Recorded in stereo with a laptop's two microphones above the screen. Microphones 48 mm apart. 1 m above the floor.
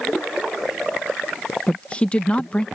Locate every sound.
1.7 s a woman speaking: 25° left (ahead or behind)